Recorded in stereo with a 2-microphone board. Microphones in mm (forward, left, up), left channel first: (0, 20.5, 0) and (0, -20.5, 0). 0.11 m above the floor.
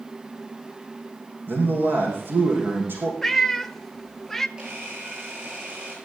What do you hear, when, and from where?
1.5 s a man speaking: 55° right (ahead or behind), 5 m
3.2 s a cat meowing: 5° left (ahead or behind), 0.5 m
4.6 s a camera shutter: 20° right (ahead or behind), 10 m